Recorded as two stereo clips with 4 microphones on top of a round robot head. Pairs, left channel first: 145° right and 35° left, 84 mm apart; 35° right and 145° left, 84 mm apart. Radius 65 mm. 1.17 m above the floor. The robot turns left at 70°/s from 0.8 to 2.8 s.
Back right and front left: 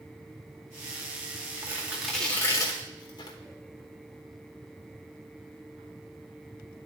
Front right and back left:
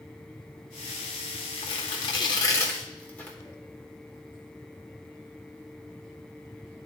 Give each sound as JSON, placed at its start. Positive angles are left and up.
{"t": 1.6, "sound": "tearing paper", "azimuth_deg": -20, "distance_m": 1.0}